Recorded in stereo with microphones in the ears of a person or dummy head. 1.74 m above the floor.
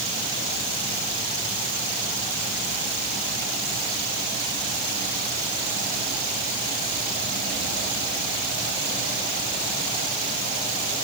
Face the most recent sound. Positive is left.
No sound to turn to.